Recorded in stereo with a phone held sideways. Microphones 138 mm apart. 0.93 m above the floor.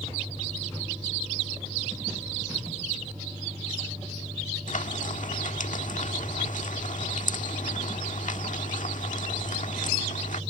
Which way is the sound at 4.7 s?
80° left.